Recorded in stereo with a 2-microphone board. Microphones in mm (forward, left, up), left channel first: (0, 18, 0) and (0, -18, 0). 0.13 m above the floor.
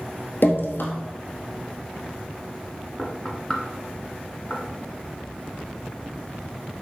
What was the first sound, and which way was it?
Dripping, 60° left (ahead or behind).